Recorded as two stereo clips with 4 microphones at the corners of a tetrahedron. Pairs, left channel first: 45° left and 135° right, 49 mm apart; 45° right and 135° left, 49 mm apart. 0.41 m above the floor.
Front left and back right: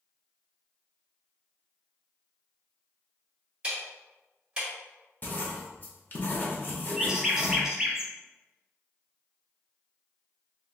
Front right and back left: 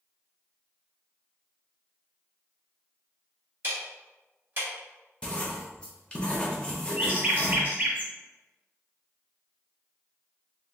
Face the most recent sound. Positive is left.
turn(degrees=155)